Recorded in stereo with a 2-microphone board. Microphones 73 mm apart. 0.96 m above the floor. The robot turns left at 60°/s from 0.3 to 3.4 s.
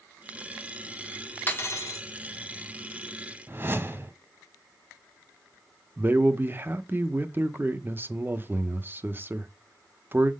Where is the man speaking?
25° right (ahead or behind), 0.7 m.